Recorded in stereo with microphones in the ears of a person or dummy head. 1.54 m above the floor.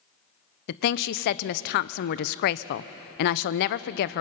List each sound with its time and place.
0.7 s a woman speaking: 55° left (ahead or behind), 0.5 m